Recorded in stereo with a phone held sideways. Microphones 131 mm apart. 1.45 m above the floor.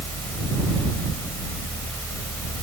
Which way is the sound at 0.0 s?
15° left (ahead or behind).